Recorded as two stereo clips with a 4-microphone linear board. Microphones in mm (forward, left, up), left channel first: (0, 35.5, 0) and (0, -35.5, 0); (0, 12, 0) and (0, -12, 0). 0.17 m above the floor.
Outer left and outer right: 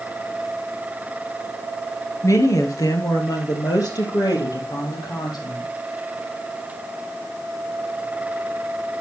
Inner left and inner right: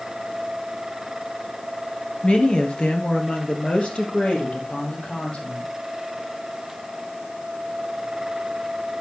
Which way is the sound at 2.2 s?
45° left (ahead or behind).